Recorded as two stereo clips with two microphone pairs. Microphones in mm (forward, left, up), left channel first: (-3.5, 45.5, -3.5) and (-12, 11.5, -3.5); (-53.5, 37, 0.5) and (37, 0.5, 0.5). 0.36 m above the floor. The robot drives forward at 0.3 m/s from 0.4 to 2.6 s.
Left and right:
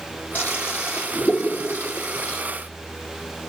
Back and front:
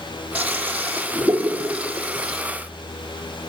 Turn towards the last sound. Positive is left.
turn(degrees=60)